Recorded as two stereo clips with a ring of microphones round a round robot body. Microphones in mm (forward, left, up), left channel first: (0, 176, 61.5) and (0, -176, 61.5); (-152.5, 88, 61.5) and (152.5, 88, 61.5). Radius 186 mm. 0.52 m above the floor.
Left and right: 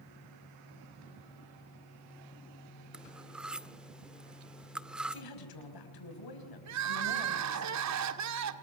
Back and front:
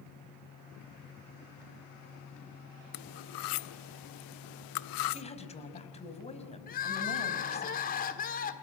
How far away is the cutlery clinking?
About 0.6 m.